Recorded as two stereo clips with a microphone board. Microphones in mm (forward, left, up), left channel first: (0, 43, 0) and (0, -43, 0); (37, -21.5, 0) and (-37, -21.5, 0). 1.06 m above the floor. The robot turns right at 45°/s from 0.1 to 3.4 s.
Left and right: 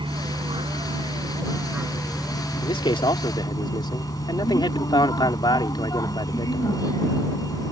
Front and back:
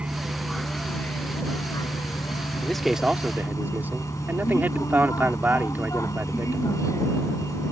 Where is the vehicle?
105° right; by 7.7 s 45° left.